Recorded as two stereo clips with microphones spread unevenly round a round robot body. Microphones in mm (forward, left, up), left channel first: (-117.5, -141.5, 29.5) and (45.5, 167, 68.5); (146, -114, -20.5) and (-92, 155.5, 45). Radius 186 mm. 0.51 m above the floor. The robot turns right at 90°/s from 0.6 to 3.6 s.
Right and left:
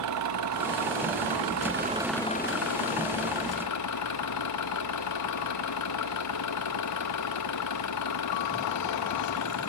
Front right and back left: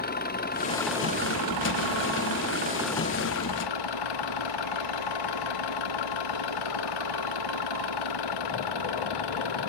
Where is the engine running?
15° left; by 9.7 s 75° right.